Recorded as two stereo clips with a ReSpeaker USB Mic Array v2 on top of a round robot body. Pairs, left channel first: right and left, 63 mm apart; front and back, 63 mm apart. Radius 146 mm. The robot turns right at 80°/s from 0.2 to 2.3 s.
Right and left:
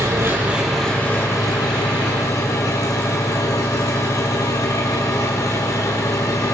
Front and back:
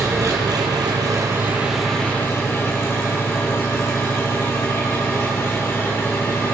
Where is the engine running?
140° left, 4 m; by 6.5 s 55° right, 4 m.